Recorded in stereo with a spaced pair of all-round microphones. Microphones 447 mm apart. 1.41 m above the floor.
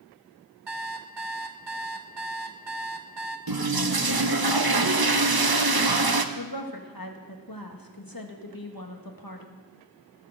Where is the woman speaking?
50° left (ahead or behind), 1.8 m.